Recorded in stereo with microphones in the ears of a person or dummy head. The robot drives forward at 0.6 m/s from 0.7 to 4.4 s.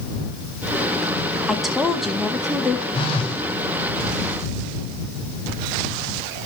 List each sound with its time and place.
1.5 s a woman speaking: centre (ahead or behind), 1.6 m
2.9 s a phone buzzing: 30° left (ahead or behind), 3 m; by 3.4 s 35° left (ahead or behind), 3 m